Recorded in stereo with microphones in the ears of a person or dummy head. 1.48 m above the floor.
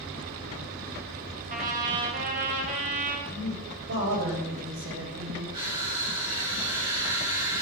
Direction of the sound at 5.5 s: 25° right (ahead or behind).